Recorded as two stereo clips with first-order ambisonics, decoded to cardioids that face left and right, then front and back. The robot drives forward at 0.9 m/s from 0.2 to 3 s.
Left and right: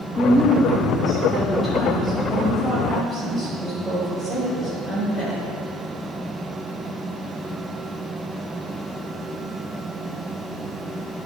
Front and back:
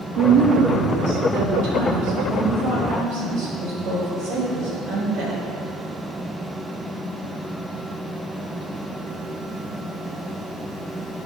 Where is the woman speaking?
160° left, 1.0 m; by 5.4 s 175° left, 3.5 m.